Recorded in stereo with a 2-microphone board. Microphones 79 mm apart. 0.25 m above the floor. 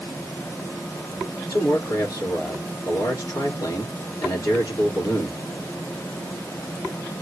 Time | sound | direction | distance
1.5 | a man speaking | 50° left (ahead or behind) | 4 m